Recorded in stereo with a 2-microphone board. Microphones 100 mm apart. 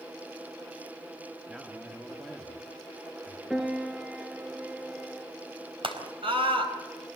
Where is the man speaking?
5° right (ahead or behind), 1.4 m.